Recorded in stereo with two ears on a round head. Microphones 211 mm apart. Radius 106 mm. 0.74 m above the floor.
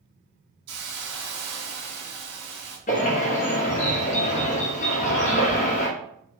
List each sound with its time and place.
0.7 s a hiss: 85° right, 1.8 m
2.9 s a bird: 35° left (ahead or behind), 0.9 m